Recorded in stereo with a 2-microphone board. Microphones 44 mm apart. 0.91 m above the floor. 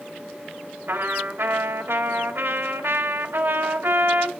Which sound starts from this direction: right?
A trumpet, at 0.9 s.